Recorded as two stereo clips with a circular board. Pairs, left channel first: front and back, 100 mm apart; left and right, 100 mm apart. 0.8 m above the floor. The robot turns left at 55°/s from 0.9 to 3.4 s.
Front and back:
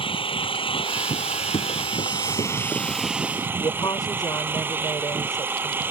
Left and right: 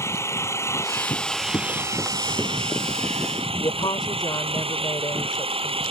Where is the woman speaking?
50° left.